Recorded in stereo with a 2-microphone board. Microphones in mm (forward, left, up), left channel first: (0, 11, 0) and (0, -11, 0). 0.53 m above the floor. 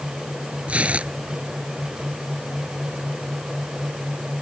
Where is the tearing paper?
75° right (ahead or behind).